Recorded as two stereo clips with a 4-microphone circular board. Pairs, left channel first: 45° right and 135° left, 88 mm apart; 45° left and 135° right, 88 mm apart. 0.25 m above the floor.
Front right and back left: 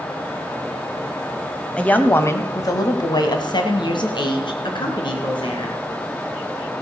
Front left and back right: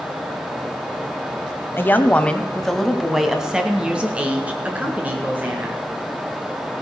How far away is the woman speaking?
About 1.0 m.